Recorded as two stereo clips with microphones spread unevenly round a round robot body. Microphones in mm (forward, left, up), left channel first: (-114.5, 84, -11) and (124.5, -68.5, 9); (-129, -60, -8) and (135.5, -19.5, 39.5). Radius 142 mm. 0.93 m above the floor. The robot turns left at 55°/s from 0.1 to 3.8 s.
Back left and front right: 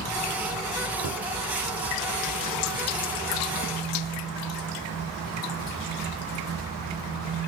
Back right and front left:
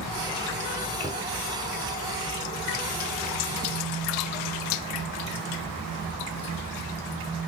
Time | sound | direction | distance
1.0 | a cupboard door | 65° right | 1.1 m